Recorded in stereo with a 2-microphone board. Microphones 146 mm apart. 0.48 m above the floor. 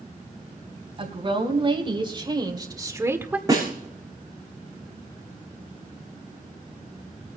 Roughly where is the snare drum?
Right.